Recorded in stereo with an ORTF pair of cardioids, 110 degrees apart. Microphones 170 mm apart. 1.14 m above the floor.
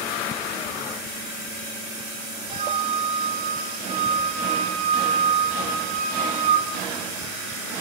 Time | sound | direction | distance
2.5 | a flute | 40° right | 4.5 m